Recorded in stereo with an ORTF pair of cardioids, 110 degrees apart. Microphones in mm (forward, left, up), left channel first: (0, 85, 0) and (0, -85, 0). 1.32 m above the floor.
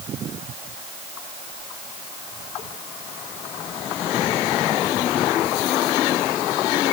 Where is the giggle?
I don't hear a giggle.